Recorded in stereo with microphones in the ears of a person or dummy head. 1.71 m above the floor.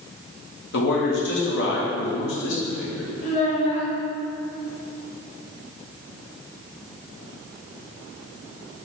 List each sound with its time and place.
0.7 s a man speaking: 70° left (ahead or behind), 1.6 m
3.2 s a child speaking: 45° left (ahead or behind), 2.5 m